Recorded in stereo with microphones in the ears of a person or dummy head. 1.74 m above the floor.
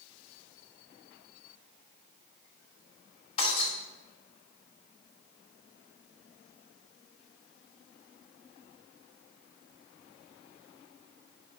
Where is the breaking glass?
35° left (ahead or behind), 3 m.